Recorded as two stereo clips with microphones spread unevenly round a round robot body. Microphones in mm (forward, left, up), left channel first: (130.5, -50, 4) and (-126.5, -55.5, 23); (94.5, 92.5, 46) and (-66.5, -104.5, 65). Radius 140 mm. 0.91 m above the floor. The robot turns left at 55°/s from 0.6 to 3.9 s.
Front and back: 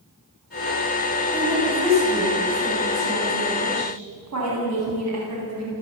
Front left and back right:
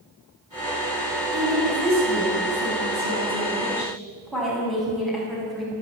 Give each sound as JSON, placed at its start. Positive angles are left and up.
{"t": 1.3, "sound": "a woman speaking", "azimuth_deg": -80, "distance_m": 9.0}